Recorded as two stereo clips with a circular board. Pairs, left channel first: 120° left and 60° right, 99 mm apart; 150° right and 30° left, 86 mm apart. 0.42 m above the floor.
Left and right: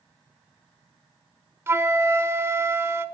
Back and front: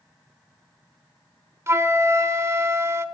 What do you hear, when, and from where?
1.7 s a flute: 5° right, 0.9 m